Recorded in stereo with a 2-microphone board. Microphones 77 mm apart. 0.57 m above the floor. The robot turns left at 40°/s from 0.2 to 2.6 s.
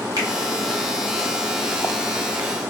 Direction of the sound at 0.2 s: 55° right (ahead or behind).